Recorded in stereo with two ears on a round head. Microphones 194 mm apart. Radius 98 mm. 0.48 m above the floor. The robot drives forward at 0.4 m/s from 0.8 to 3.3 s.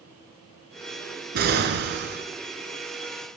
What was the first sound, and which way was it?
An explosion, 45° right (ahead or behind).